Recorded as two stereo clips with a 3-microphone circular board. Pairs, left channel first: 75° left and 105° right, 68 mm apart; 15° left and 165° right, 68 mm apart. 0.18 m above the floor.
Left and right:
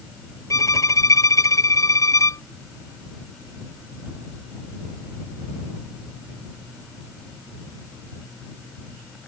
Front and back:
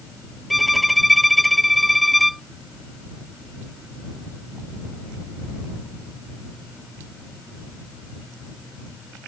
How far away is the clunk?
No clunk in this recording.